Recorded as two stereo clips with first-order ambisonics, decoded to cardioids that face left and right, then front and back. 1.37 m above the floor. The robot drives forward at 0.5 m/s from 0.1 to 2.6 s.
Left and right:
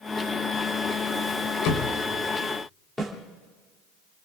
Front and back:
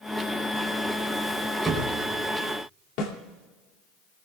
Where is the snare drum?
10° left, 2.5 m.